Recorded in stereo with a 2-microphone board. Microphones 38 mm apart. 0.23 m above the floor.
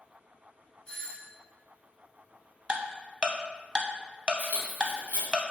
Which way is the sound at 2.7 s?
25° right (ahead or behind).